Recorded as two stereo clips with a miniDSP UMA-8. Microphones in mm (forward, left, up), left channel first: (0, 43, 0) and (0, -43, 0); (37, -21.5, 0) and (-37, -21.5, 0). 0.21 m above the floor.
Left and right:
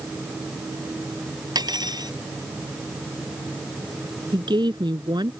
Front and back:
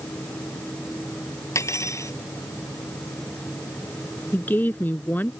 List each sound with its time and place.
1.6 s cutlery clinking: 50° right
4.3 s a woman speaking: 65° right